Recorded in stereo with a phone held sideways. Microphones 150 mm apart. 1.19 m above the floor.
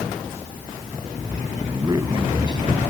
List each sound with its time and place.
1.7 s a man speaking: 25° right (ahead or behind); by 2.9 s 30° right (ahead or behind)